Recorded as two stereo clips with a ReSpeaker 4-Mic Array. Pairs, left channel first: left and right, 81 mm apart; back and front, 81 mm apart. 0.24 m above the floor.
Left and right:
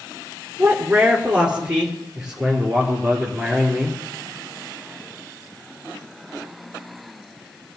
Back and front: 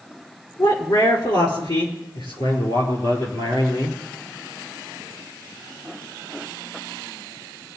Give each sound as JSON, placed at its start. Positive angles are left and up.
{"t": 0.6, "sound": "a man speaking", "azimuth_deg": -160, "distance_m": 3.0}